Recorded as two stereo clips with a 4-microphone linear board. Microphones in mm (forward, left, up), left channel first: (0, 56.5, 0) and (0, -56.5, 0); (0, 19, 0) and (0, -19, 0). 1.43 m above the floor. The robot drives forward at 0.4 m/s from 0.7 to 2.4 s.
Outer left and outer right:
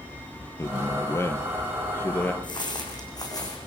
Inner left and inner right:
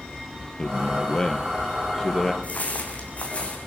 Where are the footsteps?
40° left (ahead or behind), 5.5 m; by 3.6 s 30° left (ahead or behind), 6 m.